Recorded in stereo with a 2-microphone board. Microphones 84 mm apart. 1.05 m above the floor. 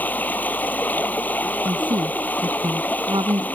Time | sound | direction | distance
0.0 | running water | 20° left (ahead or behind) | ?
1.6 | a woman speaking | 65° right (ahead or behind) | ?